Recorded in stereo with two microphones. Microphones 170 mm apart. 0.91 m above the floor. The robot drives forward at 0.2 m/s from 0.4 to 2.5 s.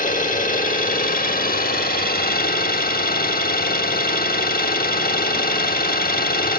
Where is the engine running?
55° left (ahead or behind), 0.9 m; by 6.6 s 60° left (ahead or behind), 0.8 m.